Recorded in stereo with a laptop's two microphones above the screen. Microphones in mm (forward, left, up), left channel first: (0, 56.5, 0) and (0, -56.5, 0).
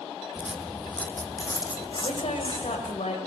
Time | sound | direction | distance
0.3 | footsteps | 15° right (ahead or behind) | 1.6 m
2.0 | a woman speaking | 70° left (ahead or behind) | 5.5 m